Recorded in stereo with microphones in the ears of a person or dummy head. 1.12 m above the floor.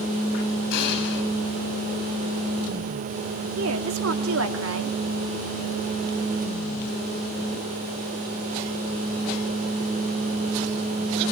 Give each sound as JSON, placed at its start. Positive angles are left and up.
{"t": 0.7, "sound": "an explosion", "side_deg": 55, "distance_m": 6.5}
{"t": 3.6, "sound": "a woman speaking", "side_deg": -70, "distance_m": 2.0}